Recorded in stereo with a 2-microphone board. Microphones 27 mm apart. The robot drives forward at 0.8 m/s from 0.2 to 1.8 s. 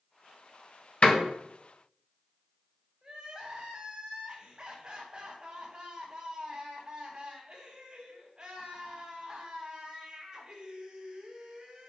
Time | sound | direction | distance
1.0 | a door slam | 50° left (ahead or behind) | 1.6 m
3.0 | crying | 25° right (ahead or behind) | 4 m